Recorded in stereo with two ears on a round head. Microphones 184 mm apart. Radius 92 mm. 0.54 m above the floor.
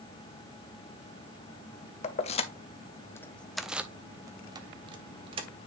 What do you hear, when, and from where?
2.0 s keys jangling: 35° left (ahead or behind), 0.9 m; by 5.5 s 30° right (ahead or behind), 1.4 m